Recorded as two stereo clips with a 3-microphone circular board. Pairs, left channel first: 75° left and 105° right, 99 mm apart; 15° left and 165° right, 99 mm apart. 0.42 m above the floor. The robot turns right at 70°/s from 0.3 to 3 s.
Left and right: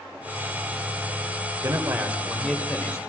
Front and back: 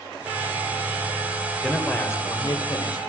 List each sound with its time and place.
1.6 s a man speaking: 70° right, 2.0 m; by 3.0 s 25° left, 2.0 m